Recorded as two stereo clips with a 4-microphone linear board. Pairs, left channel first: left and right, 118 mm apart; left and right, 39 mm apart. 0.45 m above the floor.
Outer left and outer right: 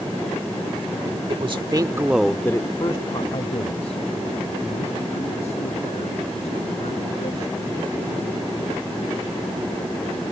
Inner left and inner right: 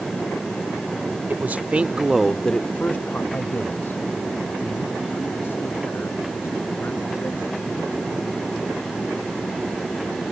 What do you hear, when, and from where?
1.3 s a man speaking: 55° right (ahead or behind); by 8.8 s 85° left